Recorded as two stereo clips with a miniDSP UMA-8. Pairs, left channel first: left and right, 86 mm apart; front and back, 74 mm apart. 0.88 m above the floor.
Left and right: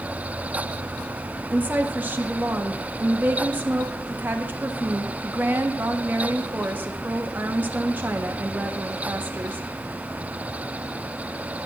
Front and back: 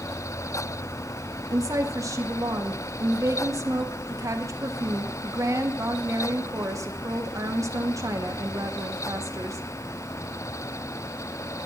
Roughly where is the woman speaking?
Behind right.